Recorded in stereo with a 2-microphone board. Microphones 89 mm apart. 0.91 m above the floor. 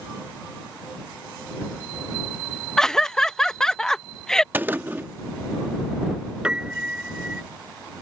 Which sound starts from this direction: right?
A gunshot, at 4.5 s.